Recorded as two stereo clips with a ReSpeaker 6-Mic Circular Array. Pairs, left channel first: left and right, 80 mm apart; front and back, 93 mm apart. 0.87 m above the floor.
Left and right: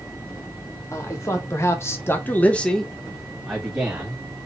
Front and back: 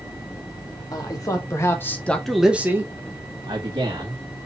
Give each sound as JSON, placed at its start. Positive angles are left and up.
{"t": 0.9, "sound": "a man speaking", "azimuth_deg": 40, "distance_m": 1.9}